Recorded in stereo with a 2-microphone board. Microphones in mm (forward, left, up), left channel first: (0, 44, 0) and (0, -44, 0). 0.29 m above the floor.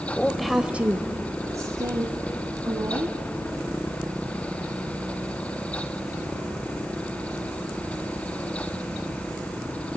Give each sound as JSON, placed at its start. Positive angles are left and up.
{"t": 0.1, "sound": "a woman speaking", "side_deg": 10, "distance_m": 1.0}